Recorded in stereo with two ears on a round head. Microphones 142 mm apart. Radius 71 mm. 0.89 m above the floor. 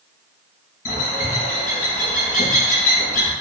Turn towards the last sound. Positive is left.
turn(degrees=60)  # may be behind; listen again after turning